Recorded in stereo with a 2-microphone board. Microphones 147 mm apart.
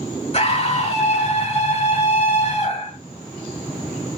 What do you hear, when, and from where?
0.3 s a scream: 45° left (ahead or behind), 1.2 m